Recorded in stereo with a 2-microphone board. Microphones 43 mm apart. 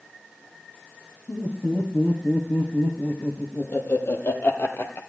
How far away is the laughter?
About 5 m.